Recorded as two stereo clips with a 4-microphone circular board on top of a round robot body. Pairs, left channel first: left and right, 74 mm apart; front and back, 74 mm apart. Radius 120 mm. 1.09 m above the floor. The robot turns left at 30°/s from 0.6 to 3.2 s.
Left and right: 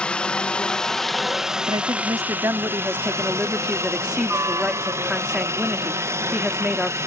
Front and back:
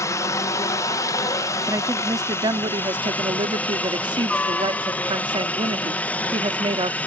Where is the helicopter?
20° left; by 7.1 s 60° right.